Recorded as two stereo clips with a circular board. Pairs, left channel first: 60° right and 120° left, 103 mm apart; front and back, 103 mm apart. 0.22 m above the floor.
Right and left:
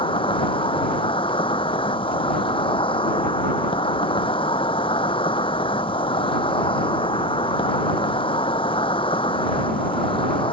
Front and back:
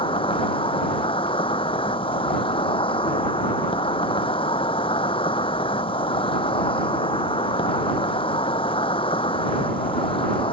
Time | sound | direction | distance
0.0 | an insect | 30° right | ?